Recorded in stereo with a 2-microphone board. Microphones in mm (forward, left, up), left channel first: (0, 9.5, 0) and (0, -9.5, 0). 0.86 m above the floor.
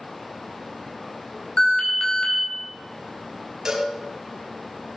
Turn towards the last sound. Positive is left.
turn(degrees=-30)  # may be behind; listen again after turning